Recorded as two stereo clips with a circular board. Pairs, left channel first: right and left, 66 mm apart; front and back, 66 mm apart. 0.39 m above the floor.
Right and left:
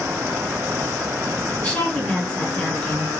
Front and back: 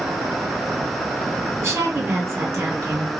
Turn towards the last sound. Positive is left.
turn(degrees=-150)